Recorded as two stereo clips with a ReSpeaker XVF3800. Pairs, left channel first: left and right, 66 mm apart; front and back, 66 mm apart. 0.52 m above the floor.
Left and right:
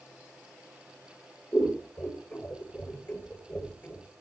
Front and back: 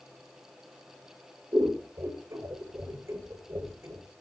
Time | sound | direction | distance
1.5 | scissors | 150° left | 2.5 m